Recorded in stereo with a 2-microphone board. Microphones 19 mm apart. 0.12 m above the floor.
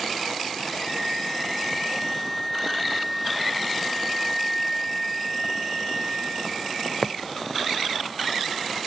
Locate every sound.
0.8 s a flute: 15° right (ahead or behind), 1.2 m